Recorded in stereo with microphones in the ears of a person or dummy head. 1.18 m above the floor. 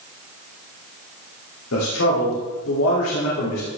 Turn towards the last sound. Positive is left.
turn(degrees=90)